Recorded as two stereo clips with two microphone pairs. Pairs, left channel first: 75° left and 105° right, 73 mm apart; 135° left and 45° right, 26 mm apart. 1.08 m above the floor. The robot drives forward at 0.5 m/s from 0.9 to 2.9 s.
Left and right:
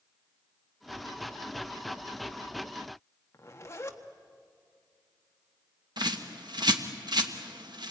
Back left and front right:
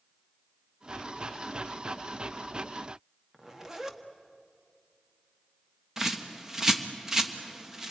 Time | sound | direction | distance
3.3 | a zipper | 20° left | 1.4 m
6.0 | a bird | 120° right | 1.3 m